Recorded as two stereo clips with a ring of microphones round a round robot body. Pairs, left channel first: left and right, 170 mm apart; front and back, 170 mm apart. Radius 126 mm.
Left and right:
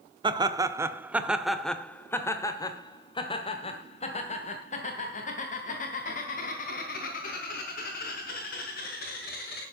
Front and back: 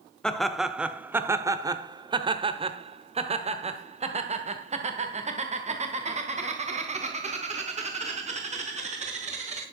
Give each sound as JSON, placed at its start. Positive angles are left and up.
{"t": 0.2, "sound": "laughter", "azimuth_deg": -80, "distance_m": 1.2}